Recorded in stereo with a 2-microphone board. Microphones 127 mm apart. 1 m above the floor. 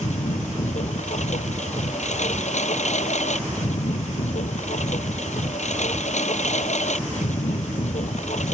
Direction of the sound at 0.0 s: 65° left (ahead or behind).